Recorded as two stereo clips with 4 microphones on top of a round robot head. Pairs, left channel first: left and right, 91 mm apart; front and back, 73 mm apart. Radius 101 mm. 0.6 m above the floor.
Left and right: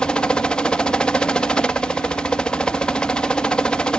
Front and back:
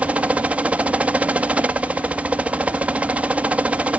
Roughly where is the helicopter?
Behind left.